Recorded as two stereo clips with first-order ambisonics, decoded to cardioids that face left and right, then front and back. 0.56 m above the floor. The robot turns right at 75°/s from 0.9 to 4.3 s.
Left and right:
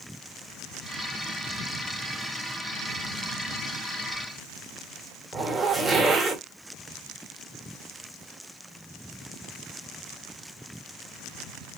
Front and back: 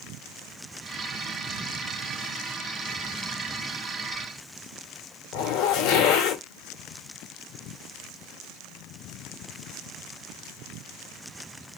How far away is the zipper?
About 1.2 m.